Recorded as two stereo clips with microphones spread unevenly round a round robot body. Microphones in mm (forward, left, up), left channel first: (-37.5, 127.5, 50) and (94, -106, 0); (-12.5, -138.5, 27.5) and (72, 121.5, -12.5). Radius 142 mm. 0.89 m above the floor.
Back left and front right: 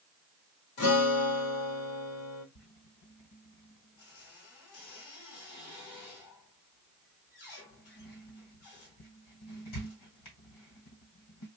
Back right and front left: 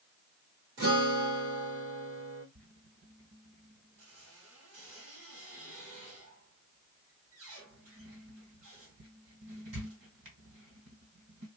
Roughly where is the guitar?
Behind left.